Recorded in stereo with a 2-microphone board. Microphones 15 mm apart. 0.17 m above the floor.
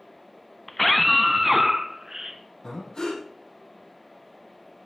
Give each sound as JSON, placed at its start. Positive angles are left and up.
{"t": 0.7, "sound": "a scream", "side_deg": 15, "distance_m": 1.4}
{"t": 2.6, "sound": "breathing", "side_deg": 60, "distance_m": 6.5}